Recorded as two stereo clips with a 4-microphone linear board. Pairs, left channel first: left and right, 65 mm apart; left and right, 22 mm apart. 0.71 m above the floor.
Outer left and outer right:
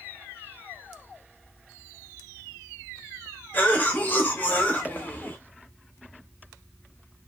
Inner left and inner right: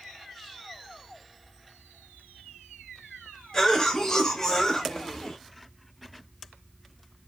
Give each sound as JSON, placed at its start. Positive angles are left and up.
{"t": 3.5, "sound": "a cough", "side_deg": 30, "distance_m": 0.9}